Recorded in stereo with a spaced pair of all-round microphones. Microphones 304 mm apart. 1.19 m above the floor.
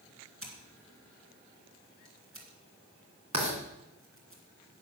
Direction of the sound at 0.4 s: 45° right (ahead or behind).